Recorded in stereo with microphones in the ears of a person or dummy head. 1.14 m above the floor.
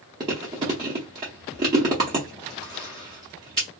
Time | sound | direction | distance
0.2 | chewing | 20° right (ahead or behind) | 0.7 m